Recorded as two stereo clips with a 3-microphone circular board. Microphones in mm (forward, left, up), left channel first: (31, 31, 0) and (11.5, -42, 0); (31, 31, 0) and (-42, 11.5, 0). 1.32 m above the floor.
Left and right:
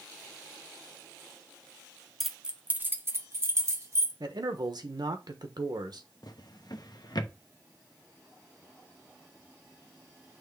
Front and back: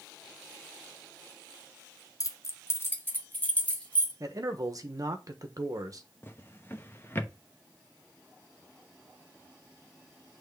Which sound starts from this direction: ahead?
Keys jangling, at 2.2 s.